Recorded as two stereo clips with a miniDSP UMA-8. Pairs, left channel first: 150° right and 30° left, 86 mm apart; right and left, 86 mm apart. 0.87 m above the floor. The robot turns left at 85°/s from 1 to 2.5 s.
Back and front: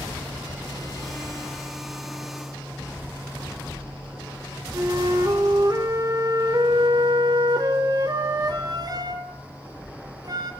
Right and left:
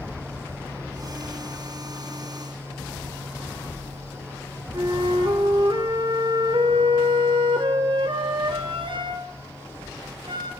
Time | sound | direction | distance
4.7 | a flute | 70° left | 2 m